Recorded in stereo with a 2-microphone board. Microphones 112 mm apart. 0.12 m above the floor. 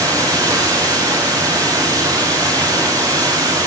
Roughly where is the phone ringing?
I don't hear a phone ringing.